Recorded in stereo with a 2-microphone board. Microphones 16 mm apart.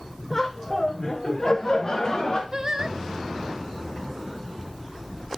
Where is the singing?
35° right (ahead or behind), 0.7 m.